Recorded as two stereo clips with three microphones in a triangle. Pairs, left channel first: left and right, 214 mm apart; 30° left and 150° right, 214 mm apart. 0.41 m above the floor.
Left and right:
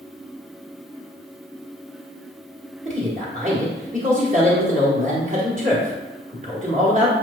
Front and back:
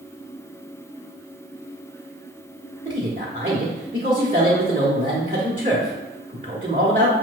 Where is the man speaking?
120° right, 1.1 m.